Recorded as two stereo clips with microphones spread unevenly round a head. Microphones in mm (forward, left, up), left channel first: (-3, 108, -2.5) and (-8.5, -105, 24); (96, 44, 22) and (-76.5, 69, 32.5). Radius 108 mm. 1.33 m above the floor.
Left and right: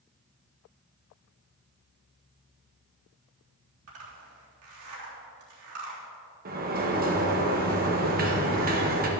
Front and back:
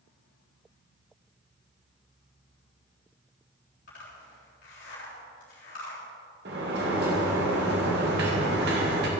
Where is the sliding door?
145° right, 1.9 m.